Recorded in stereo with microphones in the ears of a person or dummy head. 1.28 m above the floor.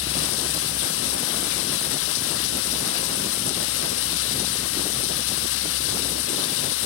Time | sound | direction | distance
0.0 | running water | 70° left (ahead or behind) | 1.2 m